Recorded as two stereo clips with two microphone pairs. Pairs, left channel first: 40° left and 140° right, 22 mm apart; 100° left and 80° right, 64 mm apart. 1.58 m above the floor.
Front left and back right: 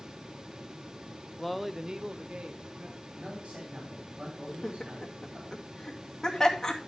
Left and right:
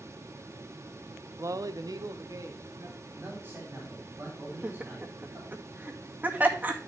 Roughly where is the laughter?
Ahead.